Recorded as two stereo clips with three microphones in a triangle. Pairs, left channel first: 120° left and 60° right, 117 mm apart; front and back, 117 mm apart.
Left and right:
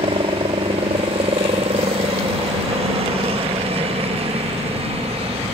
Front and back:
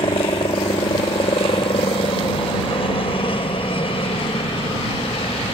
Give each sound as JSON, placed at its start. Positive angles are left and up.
{"t": 0.0, "sound": "a helicopter", "azimuth_deg": -35}